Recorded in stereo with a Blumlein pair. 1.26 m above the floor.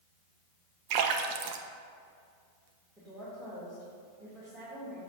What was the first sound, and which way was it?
A splash, 45° right.